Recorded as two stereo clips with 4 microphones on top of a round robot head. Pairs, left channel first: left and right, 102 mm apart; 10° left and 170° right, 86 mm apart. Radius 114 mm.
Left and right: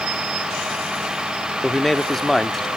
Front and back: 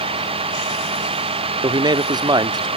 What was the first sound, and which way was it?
A vehicle, 175° right.